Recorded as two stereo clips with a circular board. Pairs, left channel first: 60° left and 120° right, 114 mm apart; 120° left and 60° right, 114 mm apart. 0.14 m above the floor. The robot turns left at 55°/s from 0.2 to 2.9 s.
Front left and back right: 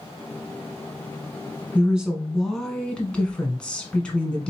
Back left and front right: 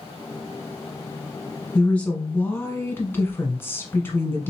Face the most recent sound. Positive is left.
turn(degrees=125)